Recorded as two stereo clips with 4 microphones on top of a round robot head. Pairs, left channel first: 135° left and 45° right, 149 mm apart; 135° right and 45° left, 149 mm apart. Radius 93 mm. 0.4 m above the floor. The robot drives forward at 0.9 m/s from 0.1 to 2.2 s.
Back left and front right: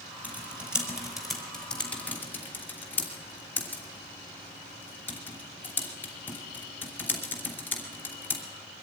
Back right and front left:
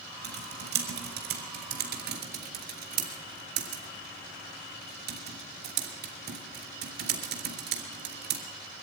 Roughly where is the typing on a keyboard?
Ahead left.